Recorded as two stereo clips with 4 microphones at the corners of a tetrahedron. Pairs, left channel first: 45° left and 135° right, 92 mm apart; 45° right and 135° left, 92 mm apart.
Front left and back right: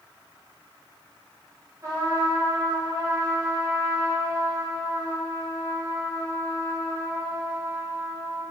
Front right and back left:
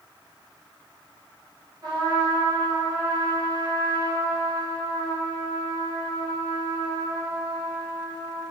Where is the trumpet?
175° left, 1.0 m.